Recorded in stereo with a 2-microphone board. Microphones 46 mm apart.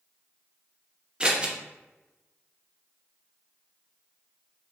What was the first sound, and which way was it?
Scissors, 20° right (ahead or behind).